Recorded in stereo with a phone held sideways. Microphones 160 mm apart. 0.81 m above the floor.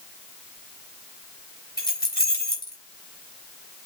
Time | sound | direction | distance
1.8 | keys jangling | 75° left (ahead or behind) | 3.5 m